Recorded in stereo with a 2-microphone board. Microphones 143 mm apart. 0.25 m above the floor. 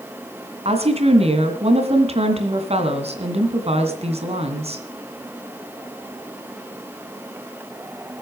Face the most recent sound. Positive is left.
turn(degrees=-50)  # may be behind; listen again after turning